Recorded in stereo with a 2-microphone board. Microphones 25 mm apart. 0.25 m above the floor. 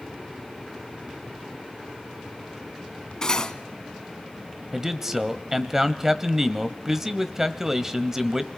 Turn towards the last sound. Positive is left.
turn(degrees=-15)  # may be behind; listen again after turning